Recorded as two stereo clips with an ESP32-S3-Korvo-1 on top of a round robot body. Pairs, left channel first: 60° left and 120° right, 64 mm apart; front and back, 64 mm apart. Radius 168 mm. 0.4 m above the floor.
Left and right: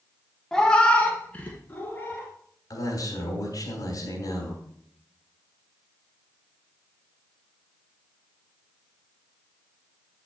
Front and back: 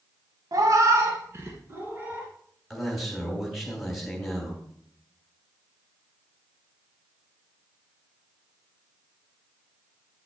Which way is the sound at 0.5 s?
145° left.